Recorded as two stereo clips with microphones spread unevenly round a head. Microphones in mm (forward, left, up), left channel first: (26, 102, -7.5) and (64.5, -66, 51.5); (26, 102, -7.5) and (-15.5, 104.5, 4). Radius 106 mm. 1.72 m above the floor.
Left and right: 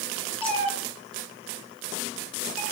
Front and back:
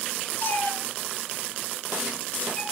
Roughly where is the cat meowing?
Ahead left.